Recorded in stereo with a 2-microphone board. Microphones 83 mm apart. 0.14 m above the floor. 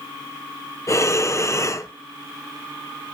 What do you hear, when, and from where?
0.9 s breathing: 40° left (ahead or behind), 0.5 m